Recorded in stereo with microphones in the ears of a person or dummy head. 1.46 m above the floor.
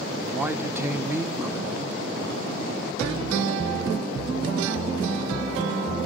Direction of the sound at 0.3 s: 10° right (ahead or behind).